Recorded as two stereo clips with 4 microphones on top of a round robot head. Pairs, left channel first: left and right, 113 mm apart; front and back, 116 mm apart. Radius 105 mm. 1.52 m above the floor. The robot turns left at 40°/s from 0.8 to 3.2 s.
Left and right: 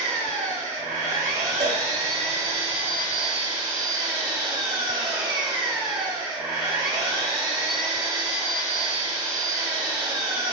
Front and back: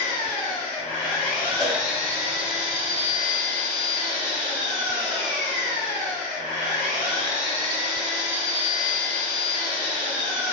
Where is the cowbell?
85° right, 1.9 m; by 1.8 s 90° right, 1.9 m.